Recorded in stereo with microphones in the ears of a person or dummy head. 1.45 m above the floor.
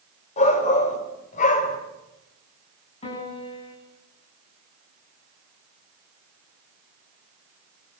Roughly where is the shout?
Left.